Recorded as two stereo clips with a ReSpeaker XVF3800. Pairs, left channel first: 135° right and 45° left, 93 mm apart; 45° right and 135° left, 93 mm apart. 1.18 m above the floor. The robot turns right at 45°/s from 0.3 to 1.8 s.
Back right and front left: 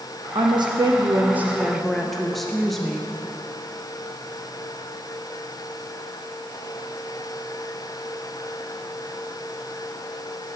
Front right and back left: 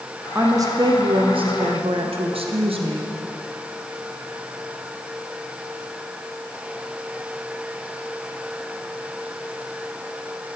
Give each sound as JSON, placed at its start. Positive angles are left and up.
{"t": 0.3, "sound": "a woman speaking", "azimuth_deg": 70, "distance_m": 0.6}